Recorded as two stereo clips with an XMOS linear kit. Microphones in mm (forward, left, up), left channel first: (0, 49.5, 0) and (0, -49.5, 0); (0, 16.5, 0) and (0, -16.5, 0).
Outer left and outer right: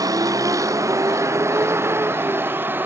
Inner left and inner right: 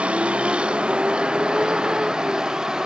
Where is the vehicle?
35° right (ahead or behind); by 2.9 s 20° right (ahead or behind).